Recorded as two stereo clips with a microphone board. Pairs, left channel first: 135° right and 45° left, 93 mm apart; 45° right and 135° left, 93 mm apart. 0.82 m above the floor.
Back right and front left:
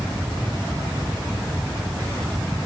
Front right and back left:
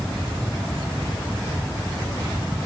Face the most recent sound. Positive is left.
No sound to turn to.